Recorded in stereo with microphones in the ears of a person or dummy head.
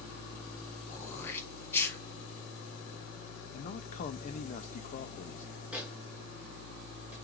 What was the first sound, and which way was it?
Throat clearing, 15° left (ahead or behind).